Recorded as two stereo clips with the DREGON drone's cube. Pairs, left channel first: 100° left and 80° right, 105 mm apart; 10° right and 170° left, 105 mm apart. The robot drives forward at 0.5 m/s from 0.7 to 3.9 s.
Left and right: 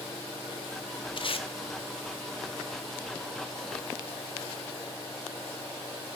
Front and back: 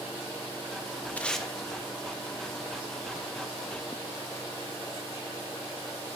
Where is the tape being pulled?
65° left, 0.5 m; by 1.5 s 80° left, 0.5 m.